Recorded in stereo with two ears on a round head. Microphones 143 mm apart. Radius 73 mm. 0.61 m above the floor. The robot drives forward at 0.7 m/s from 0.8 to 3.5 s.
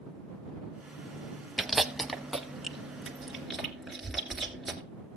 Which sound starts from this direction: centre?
Chewing, at 1.6 s.